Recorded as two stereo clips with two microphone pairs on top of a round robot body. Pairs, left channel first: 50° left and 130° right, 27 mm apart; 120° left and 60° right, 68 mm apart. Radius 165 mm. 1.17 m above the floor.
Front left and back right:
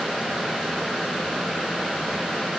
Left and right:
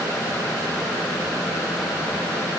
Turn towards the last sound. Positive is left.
No sound to turn to.